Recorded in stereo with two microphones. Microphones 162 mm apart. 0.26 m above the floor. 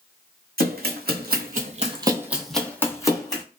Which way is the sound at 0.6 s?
75° right (ahead or behind).